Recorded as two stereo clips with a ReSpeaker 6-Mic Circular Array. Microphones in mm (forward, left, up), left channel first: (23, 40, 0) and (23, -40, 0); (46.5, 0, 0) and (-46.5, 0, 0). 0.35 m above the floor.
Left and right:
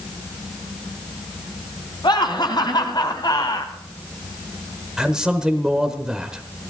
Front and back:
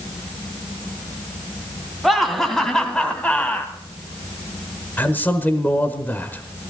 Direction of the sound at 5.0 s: 25° right.